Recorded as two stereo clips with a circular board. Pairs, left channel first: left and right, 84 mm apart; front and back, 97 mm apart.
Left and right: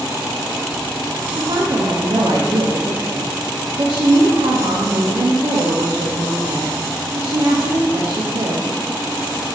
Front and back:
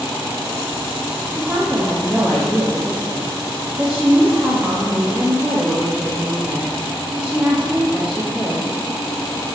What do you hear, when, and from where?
1.3 s a woman speaking: 100° right, 0.5 m